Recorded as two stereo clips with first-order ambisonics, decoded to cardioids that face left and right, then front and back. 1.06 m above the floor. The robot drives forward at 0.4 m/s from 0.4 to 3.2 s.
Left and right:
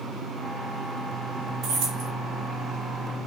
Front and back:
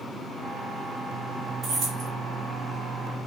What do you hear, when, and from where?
1.6 s keys jangling: 120° right, 0.8 m; by 2.1 s 135° right, 0.9 m